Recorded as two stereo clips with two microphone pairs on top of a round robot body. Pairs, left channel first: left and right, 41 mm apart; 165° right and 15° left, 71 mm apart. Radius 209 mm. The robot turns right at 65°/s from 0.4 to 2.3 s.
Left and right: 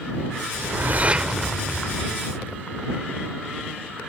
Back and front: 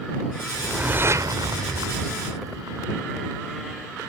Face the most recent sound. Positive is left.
turn(degrees=45)